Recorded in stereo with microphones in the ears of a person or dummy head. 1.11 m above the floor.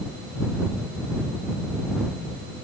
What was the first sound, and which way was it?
Only background noise.